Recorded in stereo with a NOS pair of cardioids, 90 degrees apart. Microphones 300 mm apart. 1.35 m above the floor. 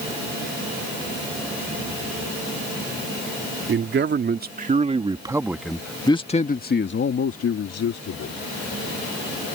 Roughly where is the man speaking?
Ahead right.